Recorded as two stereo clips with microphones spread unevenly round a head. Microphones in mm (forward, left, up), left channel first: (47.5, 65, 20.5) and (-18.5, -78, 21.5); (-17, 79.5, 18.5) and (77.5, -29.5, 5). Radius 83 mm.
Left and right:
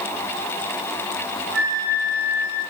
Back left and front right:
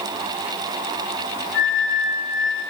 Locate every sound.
1.5 s a flute: 165° left, 3 m